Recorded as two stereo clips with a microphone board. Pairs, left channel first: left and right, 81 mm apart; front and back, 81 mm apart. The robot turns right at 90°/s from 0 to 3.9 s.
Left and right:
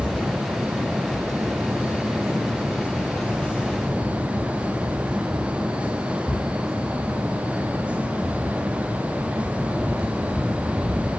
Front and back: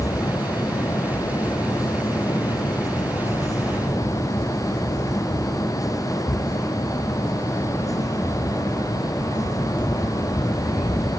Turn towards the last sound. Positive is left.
No sound to turn to.